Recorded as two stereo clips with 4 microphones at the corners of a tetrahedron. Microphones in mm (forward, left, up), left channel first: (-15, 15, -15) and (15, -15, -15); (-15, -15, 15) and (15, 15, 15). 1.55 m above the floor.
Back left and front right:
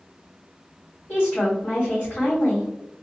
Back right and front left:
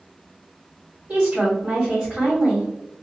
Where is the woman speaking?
100° left, 1.6 m.